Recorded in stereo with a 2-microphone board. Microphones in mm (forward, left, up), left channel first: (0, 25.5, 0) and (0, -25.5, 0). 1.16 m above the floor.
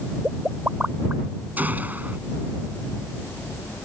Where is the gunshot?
35° right (ahead or behind).